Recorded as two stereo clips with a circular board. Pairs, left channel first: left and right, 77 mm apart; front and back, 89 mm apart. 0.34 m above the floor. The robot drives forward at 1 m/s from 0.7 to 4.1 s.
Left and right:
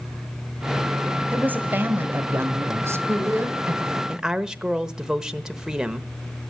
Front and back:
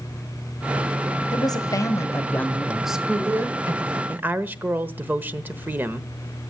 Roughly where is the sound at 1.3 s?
Ahead right.